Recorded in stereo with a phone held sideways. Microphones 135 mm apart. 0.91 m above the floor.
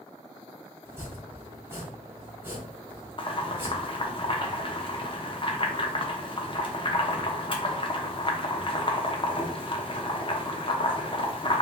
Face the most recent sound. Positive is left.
turn(degrees=40)  # may be behind; listen again after turning